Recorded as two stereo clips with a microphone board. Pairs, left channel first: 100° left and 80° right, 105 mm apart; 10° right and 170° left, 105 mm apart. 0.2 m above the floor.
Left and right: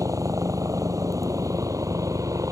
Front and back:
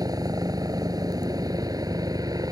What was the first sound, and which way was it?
A helicopter, 135° right.